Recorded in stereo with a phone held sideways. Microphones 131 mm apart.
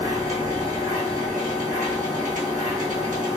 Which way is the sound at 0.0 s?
80° right.